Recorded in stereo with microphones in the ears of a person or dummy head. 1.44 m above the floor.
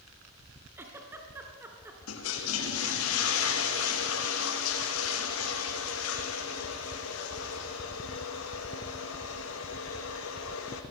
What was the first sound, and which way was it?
A giggle, 15° right (ahead or behind).